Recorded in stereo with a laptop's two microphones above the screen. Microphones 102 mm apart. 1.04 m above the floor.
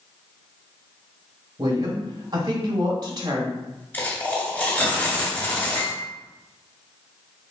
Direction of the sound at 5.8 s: 45° left (ahead or behind).